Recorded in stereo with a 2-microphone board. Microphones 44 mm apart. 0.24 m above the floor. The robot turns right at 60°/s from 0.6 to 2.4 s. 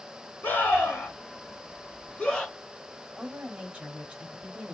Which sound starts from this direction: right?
A woman speaking, at 3.2 s.